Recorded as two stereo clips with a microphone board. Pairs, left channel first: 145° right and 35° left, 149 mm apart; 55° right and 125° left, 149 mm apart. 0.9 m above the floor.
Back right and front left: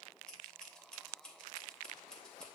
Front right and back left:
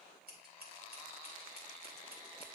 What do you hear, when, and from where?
0.3 s scissors: 130° left, 2.5 m